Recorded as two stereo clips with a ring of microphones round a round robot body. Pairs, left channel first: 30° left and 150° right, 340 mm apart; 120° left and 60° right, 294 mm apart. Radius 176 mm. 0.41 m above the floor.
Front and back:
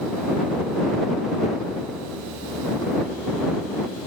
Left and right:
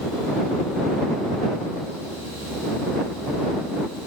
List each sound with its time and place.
Only background noise.